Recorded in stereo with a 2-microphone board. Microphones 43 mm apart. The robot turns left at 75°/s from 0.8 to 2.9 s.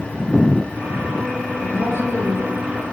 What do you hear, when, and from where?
1.6 s a woman speaking: 100° left, 8 m; by 2.5 s 35° left, 8 m